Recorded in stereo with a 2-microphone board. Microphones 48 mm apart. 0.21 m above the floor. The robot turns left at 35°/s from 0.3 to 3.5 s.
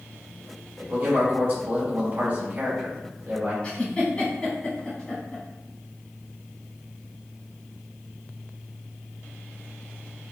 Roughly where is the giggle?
Left.